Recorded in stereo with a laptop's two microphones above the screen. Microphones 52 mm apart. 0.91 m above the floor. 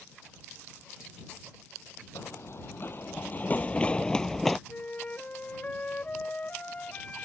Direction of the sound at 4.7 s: 30° left (ahead or behind).